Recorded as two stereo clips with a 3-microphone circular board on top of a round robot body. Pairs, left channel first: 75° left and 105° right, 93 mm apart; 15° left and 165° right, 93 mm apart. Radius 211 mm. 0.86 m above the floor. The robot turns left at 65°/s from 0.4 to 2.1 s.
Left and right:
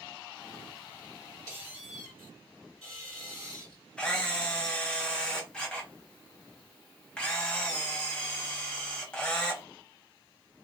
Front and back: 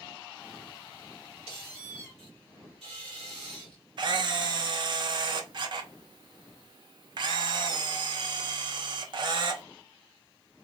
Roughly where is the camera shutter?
Behind left.